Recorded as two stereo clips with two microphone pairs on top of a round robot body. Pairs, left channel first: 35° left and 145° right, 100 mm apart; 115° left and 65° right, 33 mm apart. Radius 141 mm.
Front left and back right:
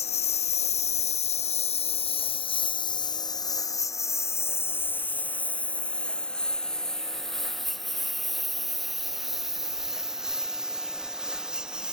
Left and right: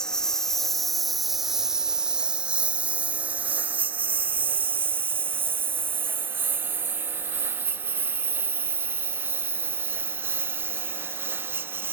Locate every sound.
0.0 s a lawn mower: 45° left; by 11.9 s 60° right